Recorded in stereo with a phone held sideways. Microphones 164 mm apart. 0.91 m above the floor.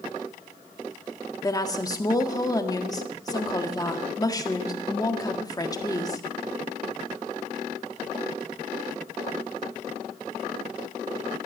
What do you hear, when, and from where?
1.4 s a woman speaking: 25° left (ahead or behind), 1.6 m